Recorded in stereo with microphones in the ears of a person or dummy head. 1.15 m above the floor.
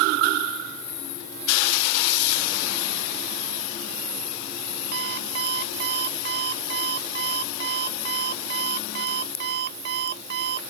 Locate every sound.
4.9 s an alarm clock: 55° right (ahead or behind)